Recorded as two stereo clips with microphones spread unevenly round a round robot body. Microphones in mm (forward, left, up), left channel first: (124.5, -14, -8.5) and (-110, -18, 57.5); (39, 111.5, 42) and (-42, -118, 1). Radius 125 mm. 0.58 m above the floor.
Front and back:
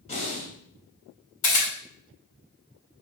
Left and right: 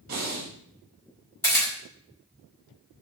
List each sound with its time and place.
0.1 s breathing: 60° right, 2.5 m
1.4 s a camera shutter: 15° right, 3.5 m